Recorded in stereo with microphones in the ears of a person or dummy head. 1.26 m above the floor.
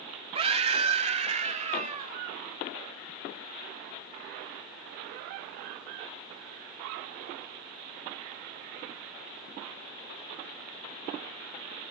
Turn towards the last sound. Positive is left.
turn(degrees=-30)  # may be behind; listen again after turning